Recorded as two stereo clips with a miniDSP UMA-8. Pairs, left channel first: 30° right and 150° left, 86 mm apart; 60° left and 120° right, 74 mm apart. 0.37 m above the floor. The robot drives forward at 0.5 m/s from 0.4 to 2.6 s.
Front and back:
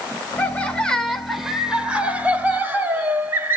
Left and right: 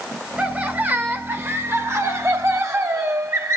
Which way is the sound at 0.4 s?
70° right.